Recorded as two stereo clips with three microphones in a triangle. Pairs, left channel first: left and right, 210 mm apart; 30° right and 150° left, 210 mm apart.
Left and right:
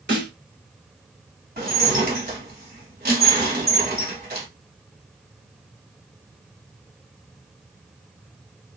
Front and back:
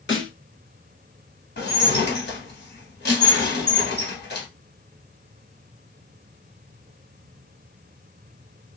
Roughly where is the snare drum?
Ahead right.